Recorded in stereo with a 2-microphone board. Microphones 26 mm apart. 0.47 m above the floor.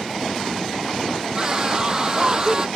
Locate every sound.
1.4 s a scream: 25° right (ahead or behind)